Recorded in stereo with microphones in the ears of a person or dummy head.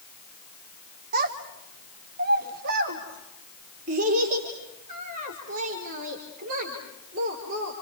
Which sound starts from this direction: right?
A child speaking, at 1.1 s.